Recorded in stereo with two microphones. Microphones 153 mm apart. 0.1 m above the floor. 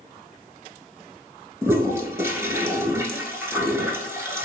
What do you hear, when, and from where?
1.6 s a toilet flushing: 15° right (ahead or behind), 0.7 m